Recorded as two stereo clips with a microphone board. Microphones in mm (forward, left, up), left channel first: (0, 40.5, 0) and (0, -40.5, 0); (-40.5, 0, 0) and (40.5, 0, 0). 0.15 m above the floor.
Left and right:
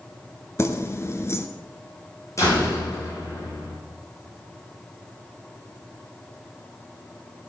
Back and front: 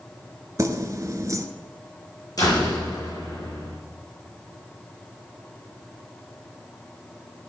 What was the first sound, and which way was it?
Keys jangling, 40° left.